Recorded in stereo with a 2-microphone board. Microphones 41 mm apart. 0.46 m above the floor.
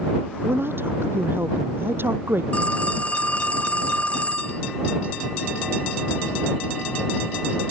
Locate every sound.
0.4 s a woman speaking: 60° right (ahead or behind)
2.5 s a phone ringing: 30° left (ahead or behind)